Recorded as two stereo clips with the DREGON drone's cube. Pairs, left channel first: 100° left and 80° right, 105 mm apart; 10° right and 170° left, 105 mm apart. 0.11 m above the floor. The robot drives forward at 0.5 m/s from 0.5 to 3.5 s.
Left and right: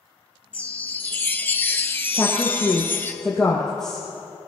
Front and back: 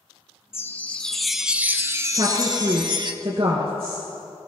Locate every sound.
0.5 s a chime: 30° left, 0.9 m; by 3.1 s 165° left, 1.2 m
2.1 s a woman speaking: 175° right, 1.8 m; by 4.1 s straight behind, 2.5 m